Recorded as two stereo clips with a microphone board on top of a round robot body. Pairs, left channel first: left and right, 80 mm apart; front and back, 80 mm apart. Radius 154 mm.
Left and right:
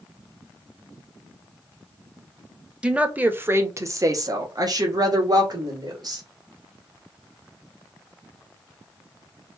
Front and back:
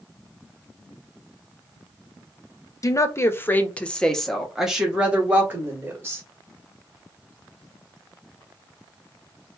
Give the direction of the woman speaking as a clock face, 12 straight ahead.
1 o'clock.